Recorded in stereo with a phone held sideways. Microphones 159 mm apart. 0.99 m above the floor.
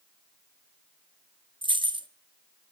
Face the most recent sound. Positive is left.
turn(degrees=-30)  # may be behind; listen again after turning